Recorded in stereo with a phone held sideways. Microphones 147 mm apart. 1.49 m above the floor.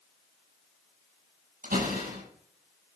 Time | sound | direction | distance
1.6 | a door slam | 80° right | 7.5 m